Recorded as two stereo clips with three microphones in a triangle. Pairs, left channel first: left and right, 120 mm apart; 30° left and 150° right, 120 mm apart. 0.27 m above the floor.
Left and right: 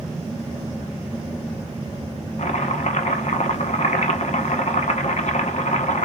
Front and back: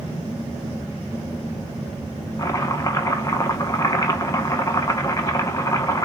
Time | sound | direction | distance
2.4 | chopping | 90° left | 0.8 m